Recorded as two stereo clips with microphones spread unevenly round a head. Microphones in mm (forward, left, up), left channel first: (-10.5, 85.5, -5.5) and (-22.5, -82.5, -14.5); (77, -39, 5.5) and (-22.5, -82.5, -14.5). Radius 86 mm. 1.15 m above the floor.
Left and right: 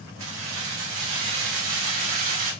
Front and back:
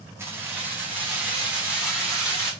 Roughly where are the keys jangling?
Right.